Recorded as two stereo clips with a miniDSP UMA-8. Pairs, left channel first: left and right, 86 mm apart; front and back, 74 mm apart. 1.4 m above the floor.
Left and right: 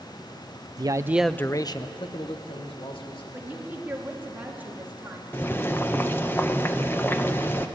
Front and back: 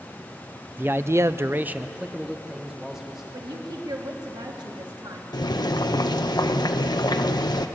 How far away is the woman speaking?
About 2.5 m.